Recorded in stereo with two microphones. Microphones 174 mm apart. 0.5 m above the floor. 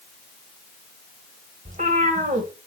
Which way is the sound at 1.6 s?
45° right (ahead or behind).